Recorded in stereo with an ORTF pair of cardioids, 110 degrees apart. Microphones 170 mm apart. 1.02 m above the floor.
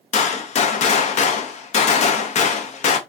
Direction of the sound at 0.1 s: 45° left.